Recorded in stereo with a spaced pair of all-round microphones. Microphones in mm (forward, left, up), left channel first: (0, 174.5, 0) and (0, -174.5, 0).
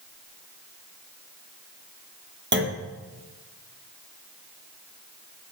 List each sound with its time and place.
2.5 s a clunk: 30° right (ahead or behind), 0.9 m